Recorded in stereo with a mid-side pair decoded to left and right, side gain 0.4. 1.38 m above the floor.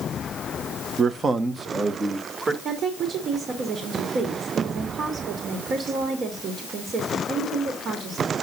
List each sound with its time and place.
1.0 s a man speaking: 55° right, 0.9 m; by 2.5 s 40° right, 2.5 m
2.6 s a woman speaking: 65° right, 2.5 m